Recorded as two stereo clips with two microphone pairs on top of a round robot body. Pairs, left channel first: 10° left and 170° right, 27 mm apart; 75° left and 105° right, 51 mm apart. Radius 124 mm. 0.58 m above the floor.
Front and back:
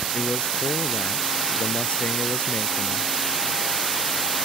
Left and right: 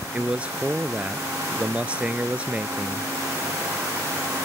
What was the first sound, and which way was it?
A man speaking, 40° right.